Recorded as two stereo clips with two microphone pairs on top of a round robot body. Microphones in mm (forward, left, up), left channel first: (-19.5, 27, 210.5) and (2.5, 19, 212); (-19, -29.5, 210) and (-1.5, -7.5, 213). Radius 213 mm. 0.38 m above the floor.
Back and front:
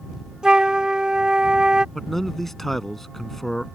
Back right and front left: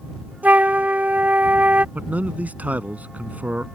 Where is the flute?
30° left.